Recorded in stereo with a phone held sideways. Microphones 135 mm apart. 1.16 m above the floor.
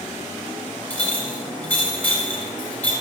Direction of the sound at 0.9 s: 15° left (ahead or behind).